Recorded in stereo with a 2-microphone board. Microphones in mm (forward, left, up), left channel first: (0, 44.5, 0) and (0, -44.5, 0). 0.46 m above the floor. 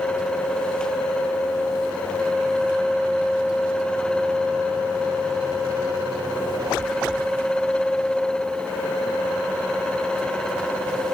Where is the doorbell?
No doorbell in this recording.